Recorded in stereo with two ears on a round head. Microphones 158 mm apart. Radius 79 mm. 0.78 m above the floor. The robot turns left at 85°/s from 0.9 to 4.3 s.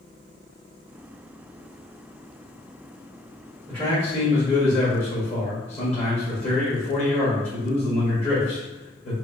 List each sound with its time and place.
3.7 s a man speaking: 175° left, 1.5 m; by 9.1 s 120° left, 1.5 m